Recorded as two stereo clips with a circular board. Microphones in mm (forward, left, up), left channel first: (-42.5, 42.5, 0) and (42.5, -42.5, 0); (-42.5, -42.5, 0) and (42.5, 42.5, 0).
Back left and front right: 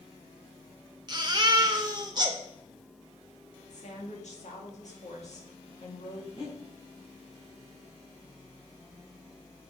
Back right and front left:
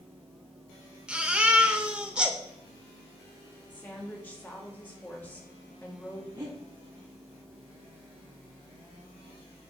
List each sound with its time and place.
1.1 s a baby crying: 30° right, 0.9 m
3.7 s a woman speaking: 150° left, 2.0 m
6.3 s breathing: 100° left, 2.5 m